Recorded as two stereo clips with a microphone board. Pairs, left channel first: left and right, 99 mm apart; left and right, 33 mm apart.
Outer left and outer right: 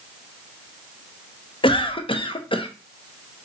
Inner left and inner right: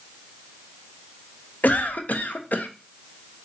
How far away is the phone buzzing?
I don't hear a phone buzzing.